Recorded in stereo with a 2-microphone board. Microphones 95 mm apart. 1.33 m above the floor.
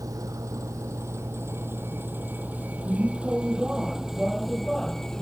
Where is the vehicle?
35° right (ahead or behind); by 5.2 s 5° left (ahead or behind).